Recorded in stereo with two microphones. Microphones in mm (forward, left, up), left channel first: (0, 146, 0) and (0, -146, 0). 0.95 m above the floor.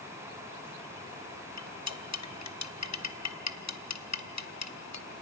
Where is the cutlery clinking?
65° left (ahead or behind), 0.6 m.